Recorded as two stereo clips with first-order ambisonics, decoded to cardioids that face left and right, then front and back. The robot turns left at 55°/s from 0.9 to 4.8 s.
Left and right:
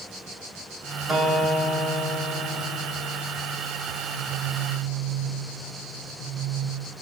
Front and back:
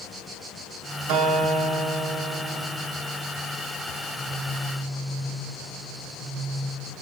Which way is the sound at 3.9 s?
110° left.